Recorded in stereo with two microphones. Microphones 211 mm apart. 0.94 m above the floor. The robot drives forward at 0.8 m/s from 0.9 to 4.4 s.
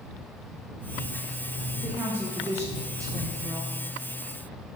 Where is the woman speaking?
10° right (ahead or behind), 1.6 m; by 3.8 s 15° right (ahead or behind), 0.9 m.